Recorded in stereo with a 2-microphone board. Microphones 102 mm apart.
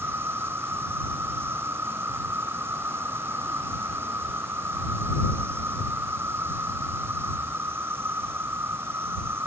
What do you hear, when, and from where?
0.0 s an insect: 25° right (ahead or behind)